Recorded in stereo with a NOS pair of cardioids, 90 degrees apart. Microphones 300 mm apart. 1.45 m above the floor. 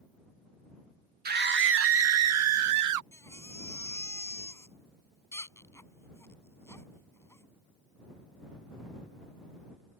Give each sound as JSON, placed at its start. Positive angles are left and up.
{"t": 1.2, "sound": "a scream", "azimuth_deg": -30}
{"t": 3.1, "sound": "a baby crying", "azimuth_deg": 10}